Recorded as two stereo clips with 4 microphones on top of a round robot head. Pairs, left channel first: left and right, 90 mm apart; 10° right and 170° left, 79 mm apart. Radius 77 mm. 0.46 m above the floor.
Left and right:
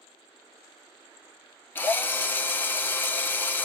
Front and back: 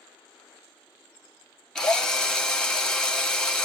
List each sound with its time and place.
1.8 s a drill: 60° left, 1.4 m